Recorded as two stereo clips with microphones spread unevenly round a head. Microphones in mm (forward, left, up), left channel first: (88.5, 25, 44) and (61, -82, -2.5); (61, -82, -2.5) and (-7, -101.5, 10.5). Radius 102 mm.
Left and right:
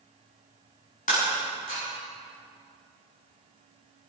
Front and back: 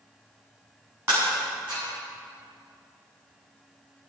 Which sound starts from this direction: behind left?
Breaking glass, at 1.1 s.